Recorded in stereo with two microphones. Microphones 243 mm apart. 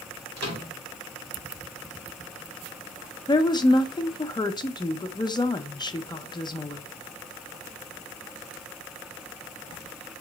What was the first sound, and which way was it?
A microwave, 80° right.